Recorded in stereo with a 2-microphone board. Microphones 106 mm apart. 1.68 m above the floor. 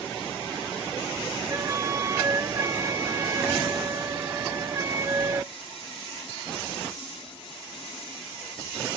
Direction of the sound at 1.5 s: 35° right (ahead or behind).